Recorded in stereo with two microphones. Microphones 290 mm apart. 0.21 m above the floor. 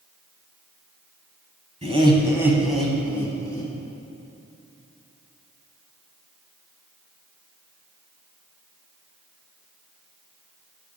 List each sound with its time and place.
1.8 s laughter: 25° right (ahead or behind), 1.0 m; by 3.7 s 15° left (ahead or behind), 1.6 m